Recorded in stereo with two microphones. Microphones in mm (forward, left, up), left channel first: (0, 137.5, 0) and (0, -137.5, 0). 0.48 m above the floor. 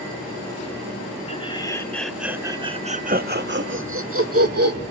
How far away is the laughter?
About 1.3 m.